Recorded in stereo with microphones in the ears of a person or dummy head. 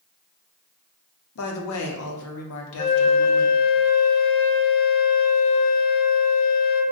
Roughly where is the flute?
Left.